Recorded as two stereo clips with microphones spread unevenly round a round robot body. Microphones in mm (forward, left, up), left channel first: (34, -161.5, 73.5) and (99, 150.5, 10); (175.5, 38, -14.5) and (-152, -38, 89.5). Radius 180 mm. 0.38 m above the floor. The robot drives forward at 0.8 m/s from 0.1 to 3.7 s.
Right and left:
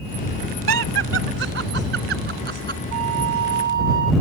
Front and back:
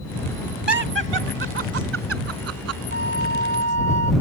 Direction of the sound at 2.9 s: 130° left.